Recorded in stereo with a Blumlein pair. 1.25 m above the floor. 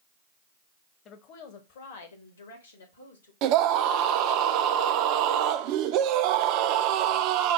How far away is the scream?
About 0.5 m.